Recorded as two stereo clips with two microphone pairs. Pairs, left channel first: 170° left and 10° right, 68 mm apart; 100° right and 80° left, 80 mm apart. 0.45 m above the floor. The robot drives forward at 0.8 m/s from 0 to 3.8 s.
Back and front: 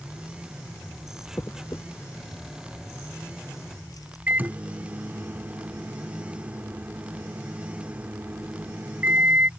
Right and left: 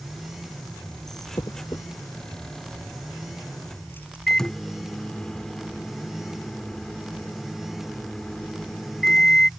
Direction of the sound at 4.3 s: 25° right.